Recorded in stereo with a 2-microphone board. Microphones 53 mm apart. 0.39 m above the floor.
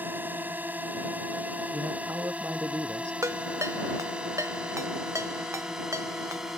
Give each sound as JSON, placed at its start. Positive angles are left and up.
{"t": 0.0, "sound": "a drone", "side_deg": -40}
{"t": 1.7, "sound": "a man speaking", "side_deg": -60}
{"t": 3.2, "sound": "a ringtone", "side_deg": -75}